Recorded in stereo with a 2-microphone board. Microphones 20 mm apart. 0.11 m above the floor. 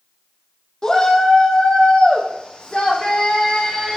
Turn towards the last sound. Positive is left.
turn(degrees=75)  # may be behind; listen again after turning